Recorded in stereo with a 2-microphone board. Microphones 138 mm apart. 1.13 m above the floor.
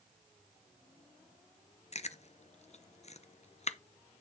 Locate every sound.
1.9 s chewing: 55° left (ahead or behind), 0.6 m